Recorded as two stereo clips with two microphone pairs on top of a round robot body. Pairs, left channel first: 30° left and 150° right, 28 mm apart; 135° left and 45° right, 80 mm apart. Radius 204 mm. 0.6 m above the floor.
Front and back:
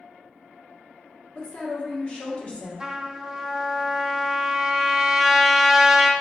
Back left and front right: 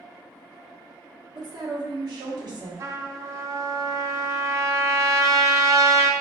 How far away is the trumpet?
About 0.6 m.